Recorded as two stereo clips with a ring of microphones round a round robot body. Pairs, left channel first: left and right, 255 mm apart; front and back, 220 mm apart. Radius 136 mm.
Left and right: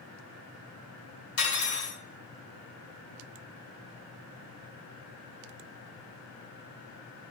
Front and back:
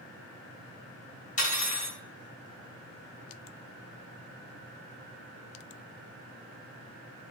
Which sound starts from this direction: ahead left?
Cutlery clinking, at 1.4 s.